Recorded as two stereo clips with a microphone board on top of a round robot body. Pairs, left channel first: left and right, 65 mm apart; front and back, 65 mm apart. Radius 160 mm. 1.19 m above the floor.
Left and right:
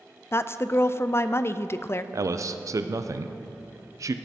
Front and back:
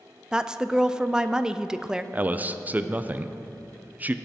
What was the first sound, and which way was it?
A woman speaking, 105° left.